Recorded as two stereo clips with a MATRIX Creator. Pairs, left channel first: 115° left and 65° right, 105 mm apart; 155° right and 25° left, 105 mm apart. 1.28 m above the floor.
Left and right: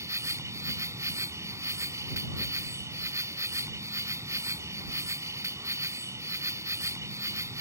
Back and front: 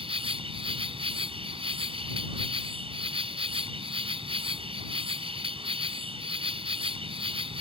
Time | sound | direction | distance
0.0 | an insect | 5° right | ?